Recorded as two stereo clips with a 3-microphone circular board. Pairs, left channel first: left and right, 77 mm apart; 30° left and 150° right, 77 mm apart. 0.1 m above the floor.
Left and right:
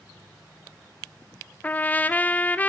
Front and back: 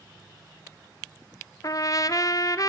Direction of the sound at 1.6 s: 25° left.